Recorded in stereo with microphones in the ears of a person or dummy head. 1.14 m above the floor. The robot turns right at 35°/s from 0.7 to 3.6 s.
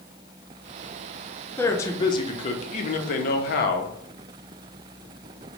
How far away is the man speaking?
About 0.5 m.